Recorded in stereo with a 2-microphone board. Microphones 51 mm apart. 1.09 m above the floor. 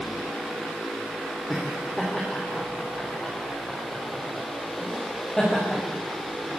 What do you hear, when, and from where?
1.5 s laughter: 5° left (ahead or behind), 3 m